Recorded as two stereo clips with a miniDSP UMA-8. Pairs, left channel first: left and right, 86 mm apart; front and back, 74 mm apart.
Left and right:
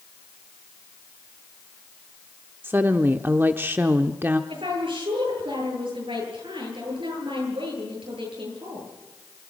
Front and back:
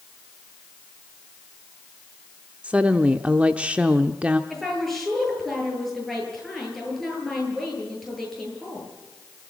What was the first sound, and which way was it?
A woman speaking, 125° right.